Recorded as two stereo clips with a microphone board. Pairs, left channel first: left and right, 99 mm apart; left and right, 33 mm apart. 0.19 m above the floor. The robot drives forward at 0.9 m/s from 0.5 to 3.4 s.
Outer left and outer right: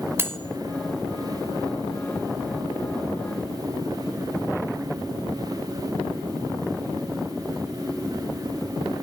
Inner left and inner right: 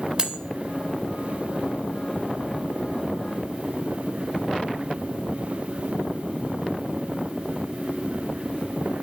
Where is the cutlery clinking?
25° right (ahead or behind), 0.7 m.